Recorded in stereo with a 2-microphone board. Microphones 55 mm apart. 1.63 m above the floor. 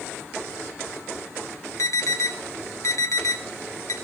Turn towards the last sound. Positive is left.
turn(degrees=70)  # may be behind; listen again after turning